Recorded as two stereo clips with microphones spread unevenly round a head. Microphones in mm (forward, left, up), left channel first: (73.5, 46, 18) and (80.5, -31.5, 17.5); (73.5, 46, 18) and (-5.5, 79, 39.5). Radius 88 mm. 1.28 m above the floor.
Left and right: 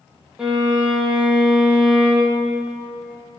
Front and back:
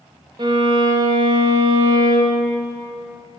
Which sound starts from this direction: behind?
A violin, at 0.4 s.